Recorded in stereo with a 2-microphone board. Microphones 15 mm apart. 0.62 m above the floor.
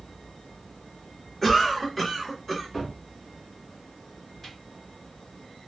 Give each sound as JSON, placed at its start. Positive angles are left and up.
{"t": 1.4, "sound": "a cough", "side_deg": 10, "distance_m": 1.1}
{"t": 2.7, "sound": "a cupboard door", "side_deg": 15, "distance_m": 1.3}